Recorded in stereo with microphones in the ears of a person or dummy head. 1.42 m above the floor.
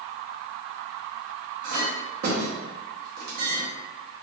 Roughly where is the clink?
Right.